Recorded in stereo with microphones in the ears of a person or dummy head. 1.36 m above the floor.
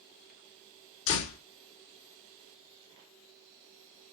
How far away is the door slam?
About 2.0 m.